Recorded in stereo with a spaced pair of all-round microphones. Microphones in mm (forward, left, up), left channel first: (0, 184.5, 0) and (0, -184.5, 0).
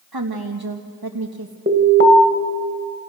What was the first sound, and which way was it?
A woman speaking, 75° right (ahead or behind).